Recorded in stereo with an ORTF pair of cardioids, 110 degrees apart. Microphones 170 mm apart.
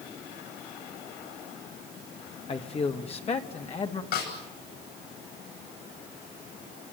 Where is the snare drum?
65° left, 10 m.